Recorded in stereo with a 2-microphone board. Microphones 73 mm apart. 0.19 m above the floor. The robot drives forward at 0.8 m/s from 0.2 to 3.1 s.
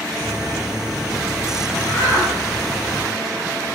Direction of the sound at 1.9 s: 30° left (ahead or behind).